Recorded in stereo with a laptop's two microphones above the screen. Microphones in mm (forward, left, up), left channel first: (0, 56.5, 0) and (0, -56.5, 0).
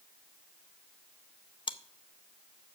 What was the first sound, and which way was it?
Chewing, 45° left (ahead or behind).